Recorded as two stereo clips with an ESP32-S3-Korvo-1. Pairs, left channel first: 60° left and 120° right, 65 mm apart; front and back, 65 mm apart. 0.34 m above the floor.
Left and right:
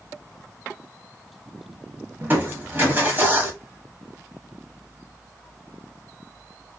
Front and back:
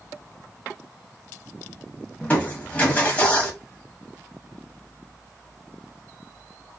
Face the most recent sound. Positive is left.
turn(degrees=-65)